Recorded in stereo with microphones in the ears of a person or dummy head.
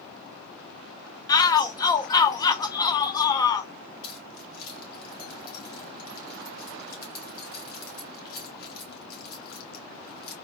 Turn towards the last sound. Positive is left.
turn(degrees=50)  # may be behind; listen again after turning